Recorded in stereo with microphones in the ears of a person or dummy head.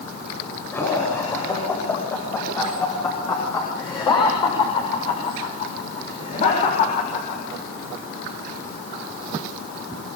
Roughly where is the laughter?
Centre.